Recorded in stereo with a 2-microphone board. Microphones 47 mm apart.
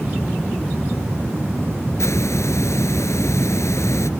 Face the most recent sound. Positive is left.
turn(degrees=75)  # may be behind; listen again after turning